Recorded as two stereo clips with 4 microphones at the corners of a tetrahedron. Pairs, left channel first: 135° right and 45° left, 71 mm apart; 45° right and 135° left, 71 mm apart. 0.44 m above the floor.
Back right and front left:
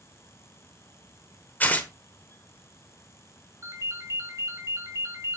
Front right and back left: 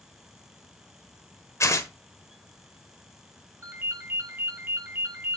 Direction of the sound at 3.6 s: 80° left.